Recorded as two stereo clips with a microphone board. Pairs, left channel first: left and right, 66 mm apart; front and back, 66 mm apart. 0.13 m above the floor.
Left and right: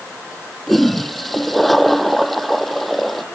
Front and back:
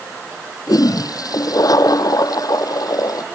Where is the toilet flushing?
5° left.